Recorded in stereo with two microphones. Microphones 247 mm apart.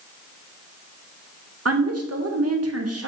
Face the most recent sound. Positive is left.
turn(degrees=-80)